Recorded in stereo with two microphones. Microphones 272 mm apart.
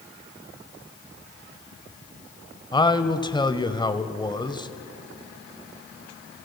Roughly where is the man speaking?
Centre.